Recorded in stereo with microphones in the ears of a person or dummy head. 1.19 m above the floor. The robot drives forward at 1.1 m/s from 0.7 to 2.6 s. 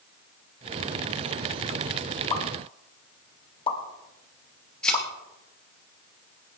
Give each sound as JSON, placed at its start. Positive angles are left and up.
{"t": 2.3, "sound": "a pop", "side_deg": 30, "distance_m": 3.0}
{"t": 4.8, "sound": "a thud", "side_deg": 5, "distance_m": 3.5}